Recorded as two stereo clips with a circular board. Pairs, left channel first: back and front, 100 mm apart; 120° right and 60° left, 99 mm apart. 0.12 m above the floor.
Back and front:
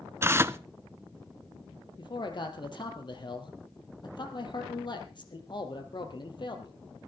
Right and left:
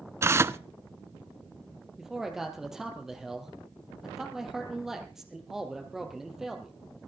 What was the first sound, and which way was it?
Tearing paper, 35° left.